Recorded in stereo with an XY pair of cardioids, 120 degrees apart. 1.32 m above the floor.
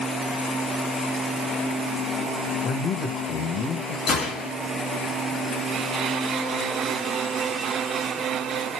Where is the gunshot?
65° left, 2.5 m.